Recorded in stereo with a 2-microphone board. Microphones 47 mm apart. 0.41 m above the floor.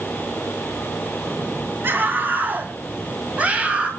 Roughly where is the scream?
Right.